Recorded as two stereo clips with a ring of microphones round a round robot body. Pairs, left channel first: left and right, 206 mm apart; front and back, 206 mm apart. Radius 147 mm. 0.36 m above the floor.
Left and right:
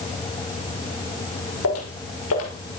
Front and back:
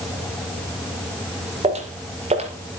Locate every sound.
1.6 s footsteps: 120° left, 5.5 m